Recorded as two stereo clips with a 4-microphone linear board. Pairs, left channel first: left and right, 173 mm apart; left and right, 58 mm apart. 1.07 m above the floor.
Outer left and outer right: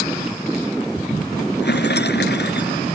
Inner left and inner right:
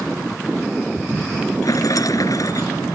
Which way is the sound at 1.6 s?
75° left (ahead or behind).